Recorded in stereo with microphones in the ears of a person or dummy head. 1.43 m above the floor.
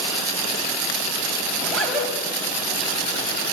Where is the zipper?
5° left (ahead or behind), 6.5 m.